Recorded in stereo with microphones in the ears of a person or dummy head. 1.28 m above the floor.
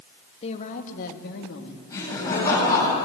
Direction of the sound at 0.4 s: 35° left (ahead or behind).